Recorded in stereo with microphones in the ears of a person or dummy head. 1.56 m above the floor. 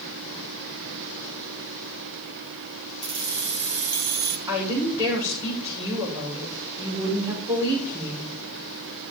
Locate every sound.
3.0 s keys jangling: 60° right (ahead or behind), 0.8 m
4.5 s a woman speaking: 15° right (ahead or behind), 6 m